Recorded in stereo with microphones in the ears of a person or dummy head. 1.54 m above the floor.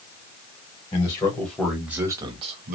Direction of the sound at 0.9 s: 20° left (ahead or behind).